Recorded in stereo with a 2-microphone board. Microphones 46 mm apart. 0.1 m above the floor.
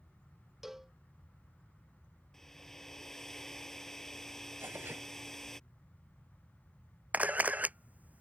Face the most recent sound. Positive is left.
turn(degrees=-35)  # may be behind; listen again after turning